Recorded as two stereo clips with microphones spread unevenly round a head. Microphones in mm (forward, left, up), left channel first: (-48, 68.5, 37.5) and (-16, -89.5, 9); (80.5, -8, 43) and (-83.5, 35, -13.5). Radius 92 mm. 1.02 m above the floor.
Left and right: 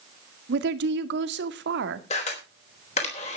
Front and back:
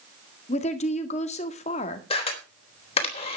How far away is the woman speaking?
About 2.0 m.